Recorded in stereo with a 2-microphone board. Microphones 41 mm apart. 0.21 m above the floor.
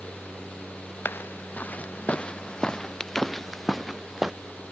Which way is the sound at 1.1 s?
55° left (ahead or behind).